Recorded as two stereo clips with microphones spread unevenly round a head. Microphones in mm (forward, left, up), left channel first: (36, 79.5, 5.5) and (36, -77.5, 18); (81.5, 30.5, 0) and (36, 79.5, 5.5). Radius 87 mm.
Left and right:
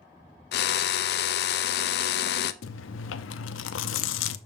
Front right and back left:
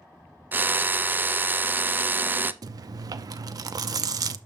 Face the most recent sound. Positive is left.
turn(degrees=105)